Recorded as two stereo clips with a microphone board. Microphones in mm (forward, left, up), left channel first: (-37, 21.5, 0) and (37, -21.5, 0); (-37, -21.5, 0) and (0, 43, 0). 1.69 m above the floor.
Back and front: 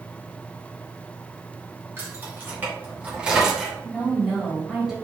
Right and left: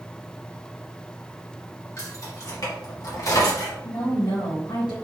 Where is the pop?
No pop in this recording.